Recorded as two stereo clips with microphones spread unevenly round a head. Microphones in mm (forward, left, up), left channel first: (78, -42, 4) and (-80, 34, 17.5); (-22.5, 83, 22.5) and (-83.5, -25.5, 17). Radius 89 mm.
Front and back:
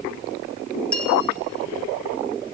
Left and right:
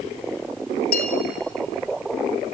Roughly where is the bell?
Ahead left.